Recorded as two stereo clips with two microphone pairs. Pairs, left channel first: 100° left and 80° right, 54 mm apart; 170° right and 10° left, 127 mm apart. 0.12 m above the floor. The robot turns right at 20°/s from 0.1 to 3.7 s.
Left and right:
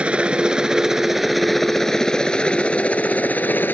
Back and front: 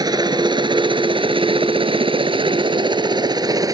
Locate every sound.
0.0 s a helicopter: 25° right; by 3.8 s 60° left